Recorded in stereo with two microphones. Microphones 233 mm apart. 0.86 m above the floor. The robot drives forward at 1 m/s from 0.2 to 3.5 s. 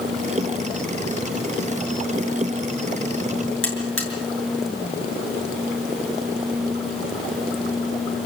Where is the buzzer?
60° left (ahead or behind), 7.5 m.